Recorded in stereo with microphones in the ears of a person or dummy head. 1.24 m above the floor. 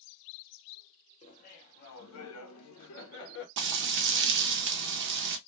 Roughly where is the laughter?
Left.